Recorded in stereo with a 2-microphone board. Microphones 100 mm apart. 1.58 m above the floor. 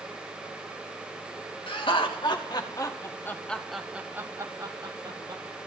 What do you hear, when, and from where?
1.7 s laughter: 60° left (ahead or behind), 2.5 m; by 5.4 s 55° right (ahead or behind), 2 m